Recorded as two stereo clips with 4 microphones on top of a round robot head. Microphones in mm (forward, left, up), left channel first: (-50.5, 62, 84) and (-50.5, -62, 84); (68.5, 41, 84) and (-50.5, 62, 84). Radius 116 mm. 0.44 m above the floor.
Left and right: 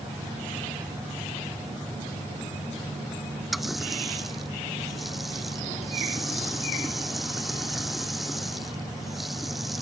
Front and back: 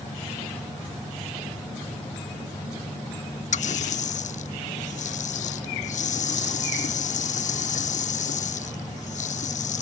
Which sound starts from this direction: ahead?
A running tap, at 3.5 s.